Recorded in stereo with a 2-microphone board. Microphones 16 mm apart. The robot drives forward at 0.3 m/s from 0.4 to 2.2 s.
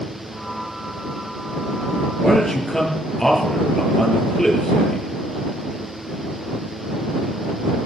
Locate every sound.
2.2 s a man speaking: 20° left (ahead or behind), 5.5 m